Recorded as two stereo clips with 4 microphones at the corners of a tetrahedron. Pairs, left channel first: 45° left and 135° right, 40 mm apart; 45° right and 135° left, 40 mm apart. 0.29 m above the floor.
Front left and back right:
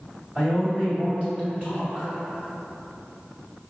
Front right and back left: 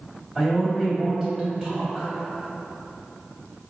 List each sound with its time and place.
0.3 s a man speaking: 160° right, 1.9 m